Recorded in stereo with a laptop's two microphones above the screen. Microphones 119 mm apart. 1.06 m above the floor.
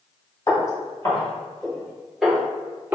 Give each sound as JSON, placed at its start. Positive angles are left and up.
{"t": 0.5, "sound": "footsteps", "side_deg": 35, "distance_m": 1.5}